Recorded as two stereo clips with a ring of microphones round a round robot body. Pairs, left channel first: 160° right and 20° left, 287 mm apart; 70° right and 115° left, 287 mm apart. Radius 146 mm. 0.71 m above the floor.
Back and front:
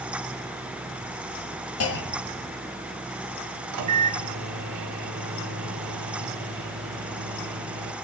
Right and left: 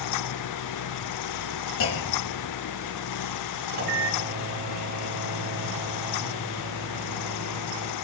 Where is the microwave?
55° left, 1.3 m.